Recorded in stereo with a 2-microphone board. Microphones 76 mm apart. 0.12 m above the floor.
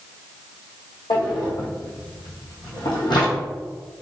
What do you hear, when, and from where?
1.1 s a drawer: 75° left (ahead or behind), 1.5 m